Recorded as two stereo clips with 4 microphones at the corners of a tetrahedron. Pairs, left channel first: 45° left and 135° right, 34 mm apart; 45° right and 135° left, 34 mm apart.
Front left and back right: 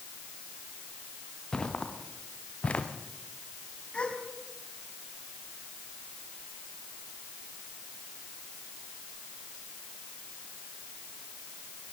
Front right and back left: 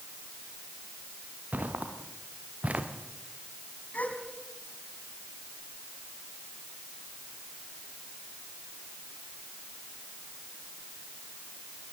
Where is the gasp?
10° right, 3.5 m.